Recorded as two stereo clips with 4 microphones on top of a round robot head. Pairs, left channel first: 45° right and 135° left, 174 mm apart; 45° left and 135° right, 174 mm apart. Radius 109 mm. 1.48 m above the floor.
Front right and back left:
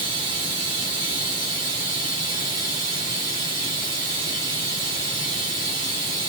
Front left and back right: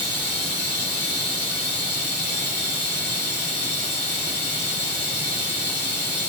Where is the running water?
70° left, 1.0 m.